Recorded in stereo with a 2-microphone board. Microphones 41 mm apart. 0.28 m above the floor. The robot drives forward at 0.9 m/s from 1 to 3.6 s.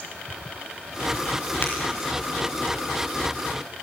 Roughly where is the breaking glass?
Left.